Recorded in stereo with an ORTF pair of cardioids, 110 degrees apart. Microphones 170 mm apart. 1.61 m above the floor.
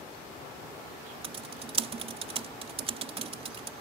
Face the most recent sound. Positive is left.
turn(degrees=-35)